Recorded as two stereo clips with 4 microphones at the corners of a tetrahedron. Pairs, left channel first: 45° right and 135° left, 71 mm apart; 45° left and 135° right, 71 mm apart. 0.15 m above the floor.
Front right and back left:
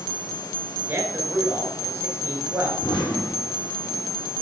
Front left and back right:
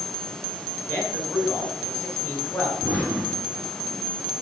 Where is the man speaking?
90° left, 2 m.